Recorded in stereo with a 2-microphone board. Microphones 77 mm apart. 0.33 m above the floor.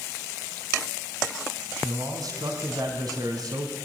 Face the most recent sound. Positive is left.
turn(degrees=-60)  # may be behind; listen again after turning